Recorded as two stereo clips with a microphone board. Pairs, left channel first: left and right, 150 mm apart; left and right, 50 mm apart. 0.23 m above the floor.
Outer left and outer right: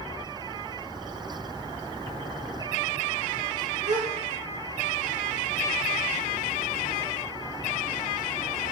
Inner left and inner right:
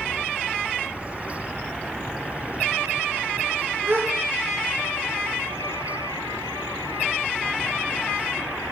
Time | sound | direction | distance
3.9 | a gasp | 60° right (ahead or behind) | 1.1 m